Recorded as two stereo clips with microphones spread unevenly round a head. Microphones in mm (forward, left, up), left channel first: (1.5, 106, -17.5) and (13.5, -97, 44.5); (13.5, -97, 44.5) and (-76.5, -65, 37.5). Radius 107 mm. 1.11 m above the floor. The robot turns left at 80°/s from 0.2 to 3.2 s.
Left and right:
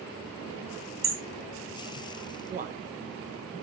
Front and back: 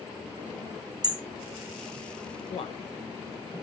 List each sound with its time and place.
1.0 s hammering: 155° right, 1.7 m; by 1.2 s 165° right, 1.7 m
2.5 s a man speaking: 20° right, 1.2 m; by 2.8 s 40° right, 1.2 m